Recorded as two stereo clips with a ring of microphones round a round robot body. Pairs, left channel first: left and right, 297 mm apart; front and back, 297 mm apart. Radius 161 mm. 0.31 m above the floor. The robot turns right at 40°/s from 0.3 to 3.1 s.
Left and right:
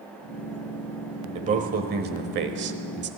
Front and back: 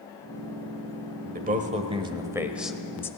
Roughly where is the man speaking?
Behind right.